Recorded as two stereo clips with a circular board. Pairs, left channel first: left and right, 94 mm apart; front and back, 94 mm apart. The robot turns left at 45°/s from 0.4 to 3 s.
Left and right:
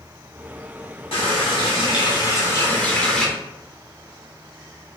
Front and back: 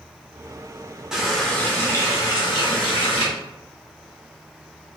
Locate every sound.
1.1 s a running tap: 95° left, 1.1 m; by 3.2 s 10° left, 1.1 m